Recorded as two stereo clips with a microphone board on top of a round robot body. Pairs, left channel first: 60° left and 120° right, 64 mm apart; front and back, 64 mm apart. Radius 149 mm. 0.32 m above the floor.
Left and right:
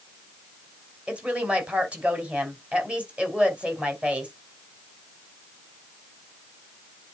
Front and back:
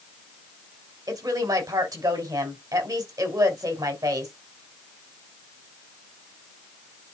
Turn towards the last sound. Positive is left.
turn(degrees=165)